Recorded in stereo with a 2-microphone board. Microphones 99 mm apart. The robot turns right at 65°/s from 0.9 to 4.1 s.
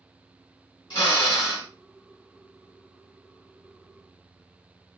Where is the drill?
95° left, 2.5 m; by 1.7 s 145° left, 2.5 m.